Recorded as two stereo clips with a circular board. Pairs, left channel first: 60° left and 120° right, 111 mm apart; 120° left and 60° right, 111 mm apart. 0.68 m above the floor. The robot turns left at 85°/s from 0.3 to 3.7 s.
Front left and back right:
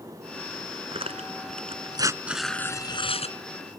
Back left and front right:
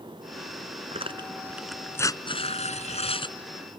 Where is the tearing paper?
80° right; by 3.4 s 70° left.